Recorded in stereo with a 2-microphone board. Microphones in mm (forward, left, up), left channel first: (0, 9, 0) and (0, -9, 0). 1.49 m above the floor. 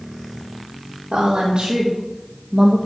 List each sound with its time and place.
1.1 s a woman speaking: 60° right (ahead or behind), 1.9 m; by 2.8 s 25° right (ahead or behind), 1.6 m